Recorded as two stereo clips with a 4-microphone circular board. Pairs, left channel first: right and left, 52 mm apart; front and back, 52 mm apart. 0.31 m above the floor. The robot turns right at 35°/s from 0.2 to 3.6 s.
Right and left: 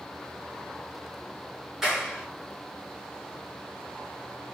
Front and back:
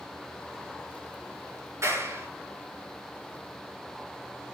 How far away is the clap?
About 5 m.